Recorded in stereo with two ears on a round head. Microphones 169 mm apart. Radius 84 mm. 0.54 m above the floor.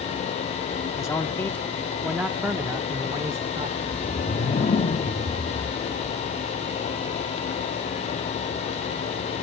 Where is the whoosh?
30° left (ahead or behind), 1.0 m.